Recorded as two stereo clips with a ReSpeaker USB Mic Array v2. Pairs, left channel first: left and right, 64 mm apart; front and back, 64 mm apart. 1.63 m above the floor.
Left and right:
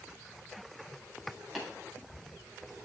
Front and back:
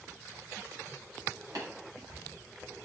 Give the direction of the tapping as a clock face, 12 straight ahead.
6 o'clock.